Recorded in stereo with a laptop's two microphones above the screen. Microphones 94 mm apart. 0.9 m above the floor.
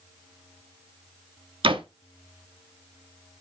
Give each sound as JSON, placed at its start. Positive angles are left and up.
{"t": 1.6, "sound": "a door slam", "side_deg": -70, "distance_m": 0.9}